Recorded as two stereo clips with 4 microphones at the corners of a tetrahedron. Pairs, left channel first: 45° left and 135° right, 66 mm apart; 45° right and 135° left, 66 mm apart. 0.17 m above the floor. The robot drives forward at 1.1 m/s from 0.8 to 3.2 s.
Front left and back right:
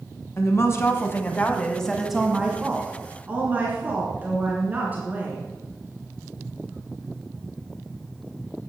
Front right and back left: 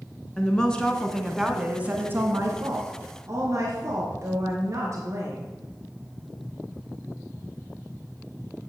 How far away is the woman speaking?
About 1.5 m.